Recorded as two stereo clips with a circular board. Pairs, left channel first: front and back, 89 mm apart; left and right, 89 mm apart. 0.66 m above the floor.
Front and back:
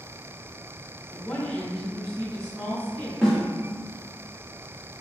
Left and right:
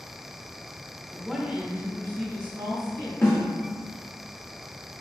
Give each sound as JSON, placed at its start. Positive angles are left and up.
{"t": 1.1, "sound": "a woman speaking", "azimuth_deg": 35, "distance_m": 0.8}
{"t": 3.2, "sound": "a snare drum", "azimuth_deg": 85, "distance_m": 1.3}